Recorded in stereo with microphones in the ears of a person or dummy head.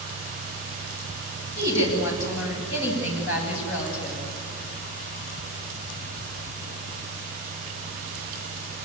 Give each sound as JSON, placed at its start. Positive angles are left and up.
{"t": 1.6, "sound": "a woman speaking", "side_deg": 65, "distance_m": 9.0}